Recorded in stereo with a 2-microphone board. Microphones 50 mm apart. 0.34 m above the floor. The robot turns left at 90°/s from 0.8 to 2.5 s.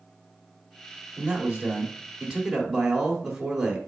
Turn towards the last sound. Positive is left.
turn(degrees=-5)  # may be behind; listen again after turning